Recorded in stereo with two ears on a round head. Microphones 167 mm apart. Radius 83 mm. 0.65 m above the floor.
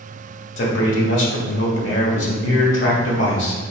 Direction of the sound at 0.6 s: 70° left (ahead or behind).